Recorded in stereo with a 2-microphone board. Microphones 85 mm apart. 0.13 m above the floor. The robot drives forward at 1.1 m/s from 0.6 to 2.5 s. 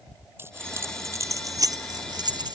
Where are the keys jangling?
30° right (ahead or behind); by 2.6 s 60° right (ahead or behind).